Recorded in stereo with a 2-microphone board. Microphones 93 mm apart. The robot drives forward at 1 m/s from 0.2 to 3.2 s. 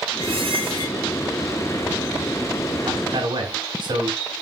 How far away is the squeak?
About 6.5 m.